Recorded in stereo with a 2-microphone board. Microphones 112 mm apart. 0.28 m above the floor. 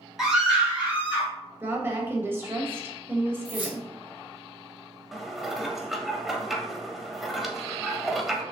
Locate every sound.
0.2 s a scream: 5° right (ahead or behind), 1.8 m; by 1.3 s 15° right (ahead or behind), 2 m
1.6 s a woman speaking: 20° right (ahead or behind), 0.9 m
3.5 s keys jangling: 10° right (ahead or behind), 1.7 m
5.1 s dishes clattering: centre (ahead or behind), 0.6 m